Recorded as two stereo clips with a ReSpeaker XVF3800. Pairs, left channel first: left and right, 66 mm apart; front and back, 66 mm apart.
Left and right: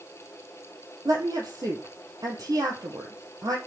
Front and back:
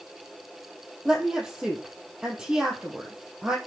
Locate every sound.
1.1 s a woman speaking: 100° right, 3.5 m